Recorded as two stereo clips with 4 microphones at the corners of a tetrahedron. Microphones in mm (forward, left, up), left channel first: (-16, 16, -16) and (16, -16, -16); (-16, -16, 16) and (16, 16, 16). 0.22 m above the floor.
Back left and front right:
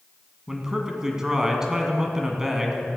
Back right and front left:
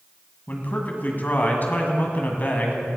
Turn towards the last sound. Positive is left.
turn(degrees=-115)